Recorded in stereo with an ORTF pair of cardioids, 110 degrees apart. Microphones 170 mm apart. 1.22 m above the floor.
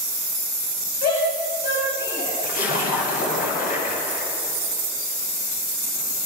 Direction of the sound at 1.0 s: 70° left.